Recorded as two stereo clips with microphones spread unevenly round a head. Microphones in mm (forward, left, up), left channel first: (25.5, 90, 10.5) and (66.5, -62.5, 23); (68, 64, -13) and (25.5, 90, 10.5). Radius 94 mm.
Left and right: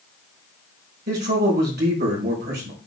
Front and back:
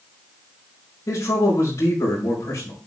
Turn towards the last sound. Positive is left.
turn(degrees=-55)